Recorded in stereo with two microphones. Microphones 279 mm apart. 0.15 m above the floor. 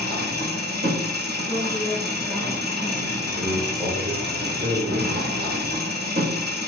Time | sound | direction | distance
0.0 | an engine running | 35° right (ahead or behind) | 1.6 m
1.5 | a woman speaking | 15° left (ahead or behind) | 1.8 m
3.3 | a man speaking | 20° right (ahead or behind) | 2.5 m